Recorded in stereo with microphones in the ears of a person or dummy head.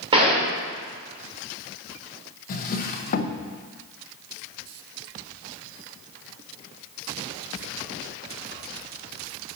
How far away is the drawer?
About 0.6 m.